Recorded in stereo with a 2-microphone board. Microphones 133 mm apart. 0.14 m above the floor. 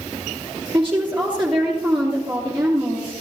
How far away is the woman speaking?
About 2.5 m.